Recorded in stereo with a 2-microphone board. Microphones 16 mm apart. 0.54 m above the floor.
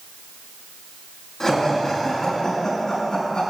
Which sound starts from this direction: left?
Laughter, at 1.4 s.